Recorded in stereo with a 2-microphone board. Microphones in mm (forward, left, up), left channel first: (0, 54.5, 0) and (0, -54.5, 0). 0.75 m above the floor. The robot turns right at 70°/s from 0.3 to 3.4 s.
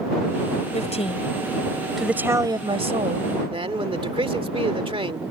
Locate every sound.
0.7 s a woman speaking: 95° left; by 3.4 s 80° right
3.5 s a man speaking: 55° right (ahead or behind)